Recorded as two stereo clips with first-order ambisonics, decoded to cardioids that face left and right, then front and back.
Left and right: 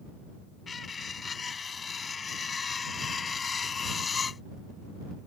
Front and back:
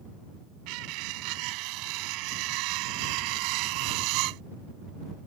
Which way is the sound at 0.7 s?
160° left.